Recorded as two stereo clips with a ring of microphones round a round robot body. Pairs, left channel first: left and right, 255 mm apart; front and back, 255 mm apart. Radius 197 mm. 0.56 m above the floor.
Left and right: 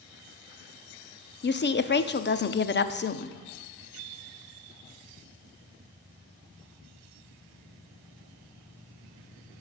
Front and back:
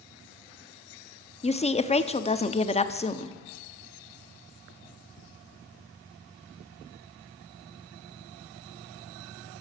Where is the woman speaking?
60° left, 0.8 m.